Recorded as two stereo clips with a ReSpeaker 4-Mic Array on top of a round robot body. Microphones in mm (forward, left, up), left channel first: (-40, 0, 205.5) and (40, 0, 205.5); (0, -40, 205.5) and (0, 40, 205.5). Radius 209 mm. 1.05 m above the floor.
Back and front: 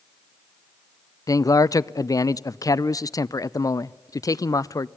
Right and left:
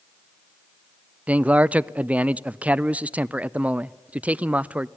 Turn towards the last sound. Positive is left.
turn(degrees=155)